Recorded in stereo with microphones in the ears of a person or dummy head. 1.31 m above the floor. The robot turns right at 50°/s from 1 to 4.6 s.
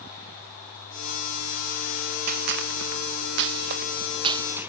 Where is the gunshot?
45° right (ahead or behind), 0.7 m; by 4.7 s 10° right (ahead or behind), 0.7 m.